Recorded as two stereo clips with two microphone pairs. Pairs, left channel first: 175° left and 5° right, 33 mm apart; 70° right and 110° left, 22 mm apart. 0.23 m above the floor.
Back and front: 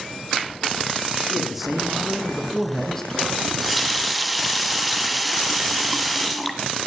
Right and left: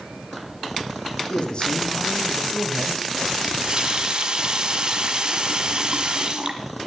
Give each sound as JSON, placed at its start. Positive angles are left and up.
{"t": 1.3, "sound": "a man speaking", "azimuth_deg": -80, "distance_m": 2.5}
{"t": 3.4, "sound": "a running tap", "azimuth_deg": 80, "distance_m": 1.3}